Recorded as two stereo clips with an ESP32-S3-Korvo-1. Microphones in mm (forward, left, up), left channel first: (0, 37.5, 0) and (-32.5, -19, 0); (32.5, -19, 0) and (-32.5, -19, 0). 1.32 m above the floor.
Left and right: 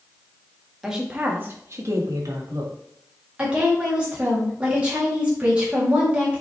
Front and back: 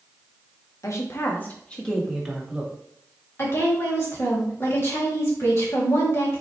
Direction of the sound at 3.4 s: 50° right.